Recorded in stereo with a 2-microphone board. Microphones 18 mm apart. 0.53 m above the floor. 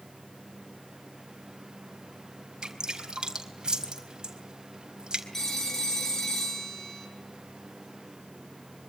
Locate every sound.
2.6 s dripping: 45° right (ahead or behind), 4 m
5.3 s a phone ringing: 15° left (ahead or behind), 5 m